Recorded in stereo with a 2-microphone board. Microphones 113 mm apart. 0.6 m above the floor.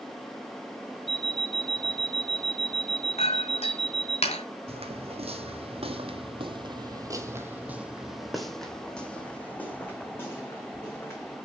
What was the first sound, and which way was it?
An alarm clock, 55° left (ahead or behind).